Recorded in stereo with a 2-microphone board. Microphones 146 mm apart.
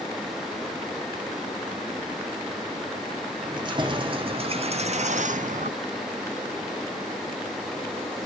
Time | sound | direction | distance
3.4 | keys jangling | 30° right (ahead or behind) | 1.5 m